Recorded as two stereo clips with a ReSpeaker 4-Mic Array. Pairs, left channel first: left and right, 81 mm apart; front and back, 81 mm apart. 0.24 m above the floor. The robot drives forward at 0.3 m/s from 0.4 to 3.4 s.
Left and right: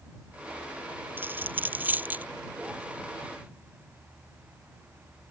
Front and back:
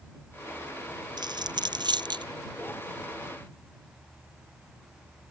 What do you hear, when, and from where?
1.2 s a dropped coin: 155° right; by 2.2 s 160° right